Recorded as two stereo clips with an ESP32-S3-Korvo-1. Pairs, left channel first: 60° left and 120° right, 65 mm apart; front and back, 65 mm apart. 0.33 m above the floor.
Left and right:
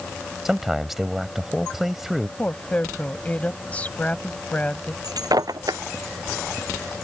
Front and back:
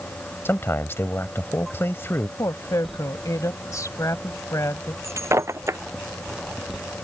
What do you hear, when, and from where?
0.5 s a man speaking: 35° right
2.4 s a woman speaking: straight ahead
5.0 s breaking glass: 135° right